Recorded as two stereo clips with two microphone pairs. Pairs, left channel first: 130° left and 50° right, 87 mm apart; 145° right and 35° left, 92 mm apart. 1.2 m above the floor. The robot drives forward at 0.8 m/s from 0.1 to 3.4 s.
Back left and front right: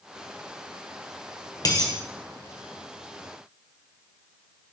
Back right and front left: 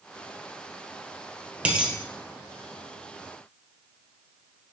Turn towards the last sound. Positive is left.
turn(degrees=145)